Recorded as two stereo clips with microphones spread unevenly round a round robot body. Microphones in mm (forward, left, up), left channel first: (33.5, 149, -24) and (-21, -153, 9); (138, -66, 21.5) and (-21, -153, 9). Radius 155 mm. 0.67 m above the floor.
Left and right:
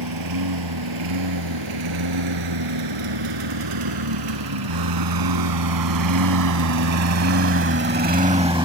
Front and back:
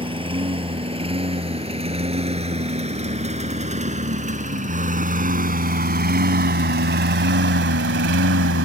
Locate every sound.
0.0 s a lawn mower: 90° right; by 8.7 s 175° right